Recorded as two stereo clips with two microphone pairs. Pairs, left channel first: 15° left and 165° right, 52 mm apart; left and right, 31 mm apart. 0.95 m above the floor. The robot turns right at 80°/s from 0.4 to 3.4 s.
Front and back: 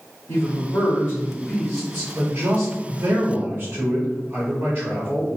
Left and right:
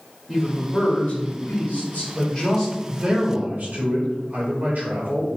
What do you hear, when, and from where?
0.3 s a man speaking: 15° left, 1.9 m; by 5.4 s 105° right, 1.9 m